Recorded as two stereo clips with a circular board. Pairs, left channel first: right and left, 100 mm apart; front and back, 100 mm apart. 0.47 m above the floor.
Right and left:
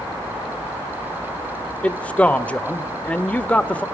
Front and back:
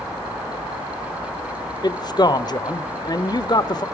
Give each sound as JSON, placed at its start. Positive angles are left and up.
{"t": 1.8, "sound": "a man speaking", "azimuth_deg": -15, "distance_m": 1.1}